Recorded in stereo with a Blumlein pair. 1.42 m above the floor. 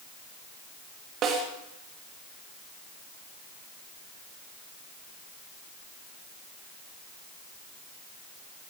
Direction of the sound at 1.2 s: 30° right.